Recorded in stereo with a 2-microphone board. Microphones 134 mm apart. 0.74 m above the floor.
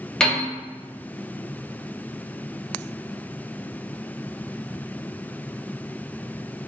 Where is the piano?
5° left (ahead or behind), 0.9 m.